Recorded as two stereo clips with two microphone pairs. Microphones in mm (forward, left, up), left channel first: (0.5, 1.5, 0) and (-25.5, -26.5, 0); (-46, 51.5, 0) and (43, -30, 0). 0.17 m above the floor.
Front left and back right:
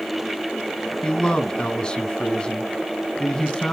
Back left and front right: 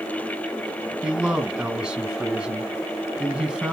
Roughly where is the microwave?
I don't hear a microwave.